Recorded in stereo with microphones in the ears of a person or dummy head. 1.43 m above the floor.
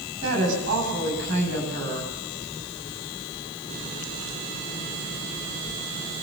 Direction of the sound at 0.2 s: 70° right (ahead or behind).